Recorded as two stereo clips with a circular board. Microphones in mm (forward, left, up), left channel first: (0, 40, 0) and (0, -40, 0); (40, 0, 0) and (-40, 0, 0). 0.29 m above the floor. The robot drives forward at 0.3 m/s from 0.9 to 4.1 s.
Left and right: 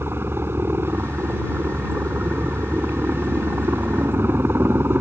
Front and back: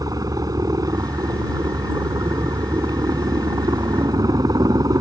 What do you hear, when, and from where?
0.0 s a helicopter: 145° right